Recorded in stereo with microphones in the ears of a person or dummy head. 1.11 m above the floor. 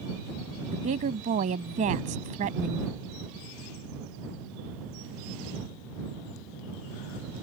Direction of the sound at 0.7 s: 40° right (ahead or behind).